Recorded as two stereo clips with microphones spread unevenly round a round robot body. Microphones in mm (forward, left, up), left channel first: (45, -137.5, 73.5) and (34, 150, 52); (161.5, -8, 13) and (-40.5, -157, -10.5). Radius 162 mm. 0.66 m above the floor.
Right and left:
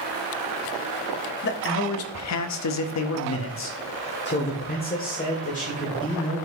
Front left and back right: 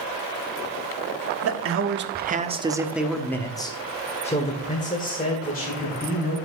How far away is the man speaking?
About 1.2 m.